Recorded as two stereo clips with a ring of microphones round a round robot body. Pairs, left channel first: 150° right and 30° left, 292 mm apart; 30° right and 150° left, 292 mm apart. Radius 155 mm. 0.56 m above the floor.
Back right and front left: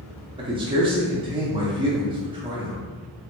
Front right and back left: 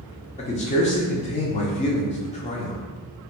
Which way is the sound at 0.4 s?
15° right.